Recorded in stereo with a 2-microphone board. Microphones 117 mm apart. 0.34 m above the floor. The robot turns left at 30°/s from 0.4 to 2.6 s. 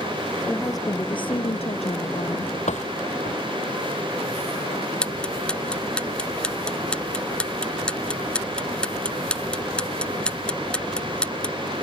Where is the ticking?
10° left (ahead or behind).